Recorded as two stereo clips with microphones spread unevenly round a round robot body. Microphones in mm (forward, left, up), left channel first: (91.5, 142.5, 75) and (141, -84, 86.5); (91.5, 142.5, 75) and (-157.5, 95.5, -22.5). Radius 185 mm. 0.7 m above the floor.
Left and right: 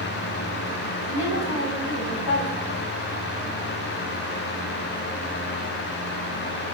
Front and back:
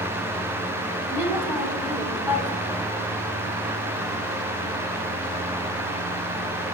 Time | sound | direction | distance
1.1 | a woman speaking | 110° left | 6.5 m